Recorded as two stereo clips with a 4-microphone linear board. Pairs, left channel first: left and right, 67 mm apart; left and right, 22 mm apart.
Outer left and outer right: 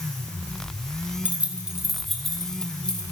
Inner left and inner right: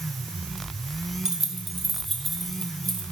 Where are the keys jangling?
25° right (ahead or behind), 0.9 m; by 3.0 s 15° left (ahead or behind), 1.8 m.